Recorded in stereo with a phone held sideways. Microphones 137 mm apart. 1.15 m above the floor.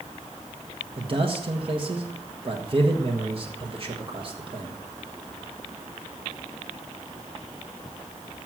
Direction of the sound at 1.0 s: 45° right (ahead or behind).